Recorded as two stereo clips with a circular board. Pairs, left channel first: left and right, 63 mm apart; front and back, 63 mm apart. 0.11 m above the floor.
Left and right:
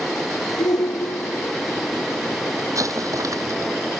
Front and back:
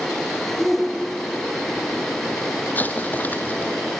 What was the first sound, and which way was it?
A shout, 90° left.